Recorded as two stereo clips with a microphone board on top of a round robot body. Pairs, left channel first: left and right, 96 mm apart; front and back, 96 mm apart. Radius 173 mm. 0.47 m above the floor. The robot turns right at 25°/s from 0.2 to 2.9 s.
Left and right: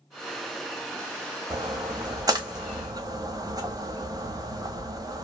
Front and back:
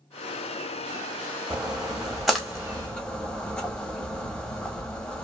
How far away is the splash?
About 1.2 m.